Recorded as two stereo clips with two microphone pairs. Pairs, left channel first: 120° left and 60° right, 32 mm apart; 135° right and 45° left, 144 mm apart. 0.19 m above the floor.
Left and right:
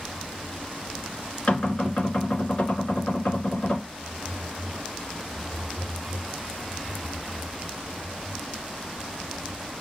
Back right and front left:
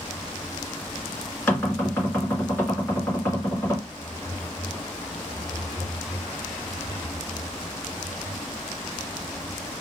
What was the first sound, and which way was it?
Knocking, 150° left.